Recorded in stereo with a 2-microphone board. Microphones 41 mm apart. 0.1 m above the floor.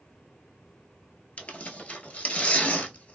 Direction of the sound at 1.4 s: 40° left (ahead or behind).